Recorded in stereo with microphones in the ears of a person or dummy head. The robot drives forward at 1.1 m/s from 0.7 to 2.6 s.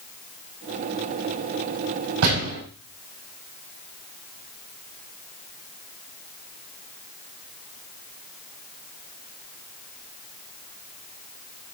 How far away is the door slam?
About 5 m.